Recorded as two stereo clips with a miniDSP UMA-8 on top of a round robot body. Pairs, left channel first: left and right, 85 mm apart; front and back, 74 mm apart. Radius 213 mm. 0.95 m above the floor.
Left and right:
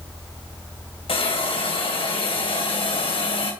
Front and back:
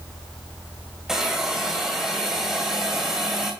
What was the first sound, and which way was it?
A hiss, 100° left.